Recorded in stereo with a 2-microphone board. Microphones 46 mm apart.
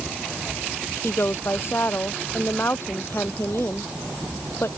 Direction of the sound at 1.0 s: 60° left (ahead or behind).